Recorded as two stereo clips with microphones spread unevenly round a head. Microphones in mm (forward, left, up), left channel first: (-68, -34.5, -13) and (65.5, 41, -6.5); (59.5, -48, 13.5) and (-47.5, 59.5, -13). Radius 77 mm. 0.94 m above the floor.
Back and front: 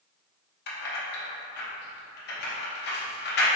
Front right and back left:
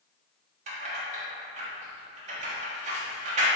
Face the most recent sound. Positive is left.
turn(degrees=-175)